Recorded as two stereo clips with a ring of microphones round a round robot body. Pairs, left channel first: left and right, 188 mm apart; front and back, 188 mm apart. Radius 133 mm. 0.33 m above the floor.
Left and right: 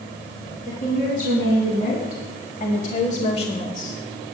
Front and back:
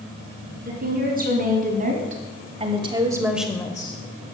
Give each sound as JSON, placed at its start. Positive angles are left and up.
{"t": 0.7, "sound": "a woman speaking", "azimuth_deg": 150, "distance_m": 3.0}